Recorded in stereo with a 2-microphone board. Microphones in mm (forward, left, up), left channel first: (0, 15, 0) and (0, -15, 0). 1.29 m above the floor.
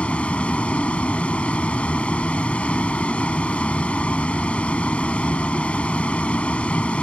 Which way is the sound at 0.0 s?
40° left (ahead or behind).